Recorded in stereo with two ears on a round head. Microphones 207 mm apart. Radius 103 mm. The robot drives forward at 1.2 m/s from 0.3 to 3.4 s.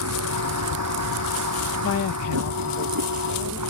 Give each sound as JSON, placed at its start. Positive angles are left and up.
{"t": 0.0, "sound": "a vehicle", "side_deg": -75}
{"t": 1.8, "sound": "a woman speaking", "side_deg": 50}